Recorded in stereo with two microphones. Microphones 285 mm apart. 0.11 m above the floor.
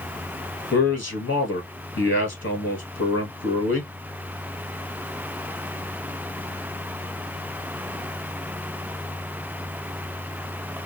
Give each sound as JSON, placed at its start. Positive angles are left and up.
{"t": 0.7, "sound": "a man speaking", "side_deg": 45, "distance_m": 1.7}